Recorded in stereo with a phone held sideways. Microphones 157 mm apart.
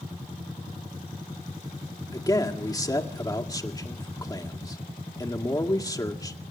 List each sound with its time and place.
2.1 s a man speaking: 25° left (ahead or behind), 2.0 m